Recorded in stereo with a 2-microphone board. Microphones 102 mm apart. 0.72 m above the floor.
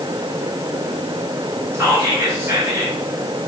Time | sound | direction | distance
1.7 | whispering | 30° right (ahead or behind) | 0.9 m